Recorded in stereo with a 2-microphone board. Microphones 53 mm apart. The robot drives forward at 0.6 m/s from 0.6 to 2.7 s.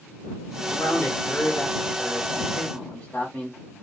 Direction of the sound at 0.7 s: 30° left (ahead or behind).